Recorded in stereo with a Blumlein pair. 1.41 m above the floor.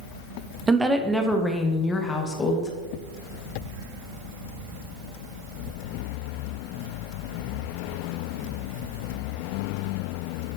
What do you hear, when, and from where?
0.7 s a woman speaking: 15° right, 0.8 m; by 2.7 s 20° left, 1.6 m